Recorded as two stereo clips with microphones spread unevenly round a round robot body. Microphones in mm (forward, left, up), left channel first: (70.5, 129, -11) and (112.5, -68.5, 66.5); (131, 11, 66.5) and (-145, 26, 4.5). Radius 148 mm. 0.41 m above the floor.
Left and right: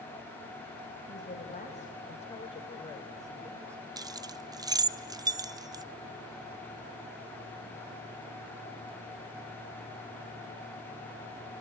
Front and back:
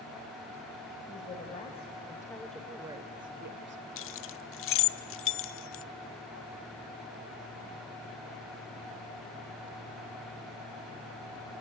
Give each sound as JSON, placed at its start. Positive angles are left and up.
{"t": 1.1, "sound": "a woman speaking", "azimuth_deg": 65, "distance_m": 2.5}
{"t": 4.0, "sound": "keys jangling", "azimuth_deg": 15, "distance_m": 0.6}